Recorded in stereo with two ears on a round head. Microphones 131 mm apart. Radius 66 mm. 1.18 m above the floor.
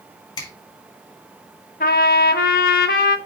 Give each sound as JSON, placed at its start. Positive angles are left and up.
{"t": 0.4, "sound": "a finger snap", "side_deg": 30, "distance_m": 4.5}
{"t": 1.8, "sound": "a trumpet", "side_deg": 70, "distance_m": 1.4}